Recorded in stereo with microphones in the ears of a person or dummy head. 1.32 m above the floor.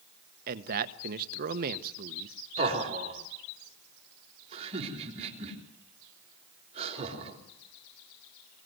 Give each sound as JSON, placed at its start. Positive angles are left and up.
{"t": 0.5, "sound": "a man speaking", "side_deg": -50, "distance_m": 1.1}
{"t": 2.6, "sound": "laughter", "side_deg": -35, "distance_m": 4.5}